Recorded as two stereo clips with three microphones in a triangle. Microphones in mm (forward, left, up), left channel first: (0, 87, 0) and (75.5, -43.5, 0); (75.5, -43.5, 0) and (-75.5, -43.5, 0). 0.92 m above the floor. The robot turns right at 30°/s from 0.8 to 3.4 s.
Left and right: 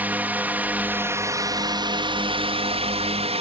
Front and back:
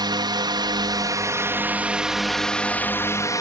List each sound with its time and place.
0.0 s a drone: 135° right; by 3.4 s 55° right